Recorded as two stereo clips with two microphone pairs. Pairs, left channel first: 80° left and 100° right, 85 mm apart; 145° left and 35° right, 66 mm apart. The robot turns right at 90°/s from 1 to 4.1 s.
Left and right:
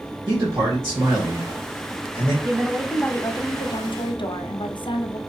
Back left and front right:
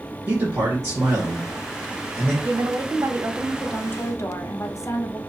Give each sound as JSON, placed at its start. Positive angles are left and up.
{"t": 0.3, "sound": "a man speaking", "azimuth_deg": -55, "distance_m": 1.6}
{"t": 2.4, "sound": "a woman speaking", "azimuth_deg": -50, "distance_m": 0.6}